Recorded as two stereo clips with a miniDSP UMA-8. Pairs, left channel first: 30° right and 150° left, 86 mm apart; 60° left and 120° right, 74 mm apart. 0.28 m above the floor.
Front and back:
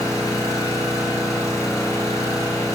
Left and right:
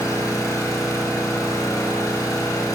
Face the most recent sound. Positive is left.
turn(degrees=15)